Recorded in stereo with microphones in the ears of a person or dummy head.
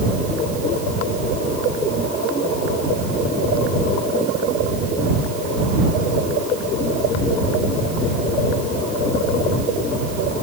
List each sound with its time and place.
Only background noise.